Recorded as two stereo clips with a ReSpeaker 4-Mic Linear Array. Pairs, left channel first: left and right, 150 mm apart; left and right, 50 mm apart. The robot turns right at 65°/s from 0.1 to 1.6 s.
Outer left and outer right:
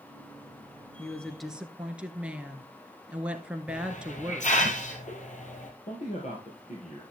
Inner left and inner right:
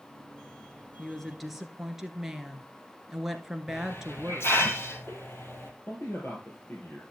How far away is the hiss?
About 2 m.